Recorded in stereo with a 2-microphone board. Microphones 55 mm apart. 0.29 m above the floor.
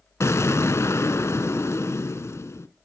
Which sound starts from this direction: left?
An explosion, at 0.2 s.